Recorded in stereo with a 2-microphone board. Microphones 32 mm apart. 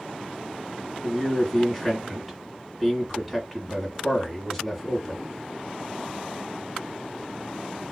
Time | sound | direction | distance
1.0 | a man speaking | 5° right (ahead or behind) | 2 m